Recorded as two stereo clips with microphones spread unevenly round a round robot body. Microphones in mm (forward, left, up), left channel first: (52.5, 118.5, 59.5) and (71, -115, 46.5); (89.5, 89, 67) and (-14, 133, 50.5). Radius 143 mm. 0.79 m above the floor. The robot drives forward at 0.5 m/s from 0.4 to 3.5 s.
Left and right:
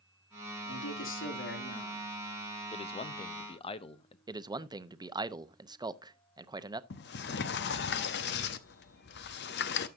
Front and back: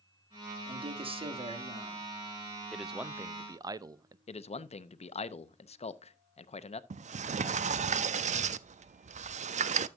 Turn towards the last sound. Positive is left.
turn(degrees=145)